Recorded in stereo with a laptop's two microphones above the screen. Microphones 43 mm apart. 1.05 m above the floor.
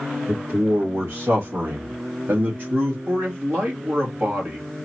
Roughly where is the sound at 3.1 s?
Right.